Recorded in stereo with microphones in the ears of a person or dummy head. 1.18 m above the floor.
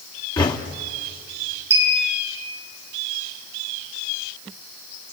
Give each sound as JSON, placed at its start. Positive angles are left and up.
{"t": 0.4, "sound": "knocking", "side_deg": 20, "distance_m": 1.4}
{"t": 1.7, "sound": "a clink", "side_deg": -20, "distance_m": 8.0}